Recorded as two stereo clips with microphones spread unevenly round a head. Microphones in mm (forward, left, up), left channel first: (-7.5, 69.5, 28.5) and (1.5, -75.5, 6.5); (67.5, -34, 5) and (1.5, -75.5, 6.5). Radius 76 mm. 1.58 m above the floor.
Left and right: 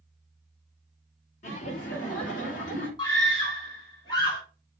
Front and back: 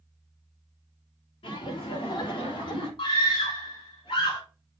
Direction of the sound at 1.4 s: 50° left.